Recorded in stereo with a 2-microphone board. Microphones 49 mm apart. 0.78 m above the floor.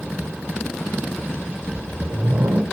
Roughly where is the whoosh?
Right.